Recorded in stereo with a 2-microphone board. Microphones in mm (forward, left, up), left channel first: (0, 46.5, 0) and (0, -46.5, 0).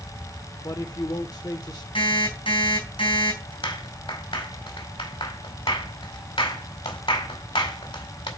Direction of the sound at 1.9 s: 85° left.